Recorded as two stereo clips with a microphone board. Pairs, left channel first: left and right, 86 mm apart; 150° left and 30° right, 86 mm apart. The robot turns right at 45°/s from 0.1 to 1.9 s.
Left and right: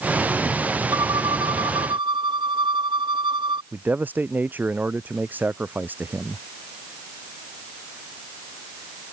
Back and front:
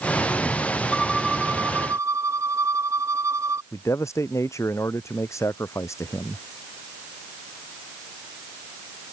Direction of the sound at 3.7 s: 160° right.